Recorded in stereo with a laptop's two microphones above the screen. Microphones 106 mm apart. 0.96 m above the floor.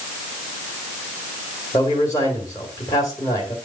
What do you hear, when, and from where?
1.7 s a man speaking: 30° left (ahead or behind), 2 m